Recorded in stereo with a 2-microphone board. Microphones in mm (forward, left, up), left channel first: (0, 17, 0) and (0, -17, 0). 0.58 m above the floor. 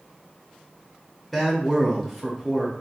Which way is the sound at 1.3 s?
Centre (ahead or behind).